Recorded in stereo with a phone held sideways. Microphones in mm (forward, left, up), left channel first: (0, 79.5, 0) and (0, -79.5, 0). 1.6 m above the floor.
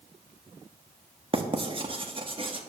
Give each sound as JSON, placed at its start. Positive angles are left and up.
{"t": 1.3, "sound": "writing", "side_deg": -35, "distance_m": 1.1}